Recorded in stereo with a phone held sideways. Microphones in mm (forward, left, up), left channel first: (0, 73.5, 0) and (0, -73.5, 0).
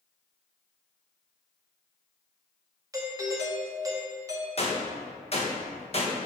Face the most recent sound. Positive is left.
turn(degrees=45)  # may be behind; listen again after turning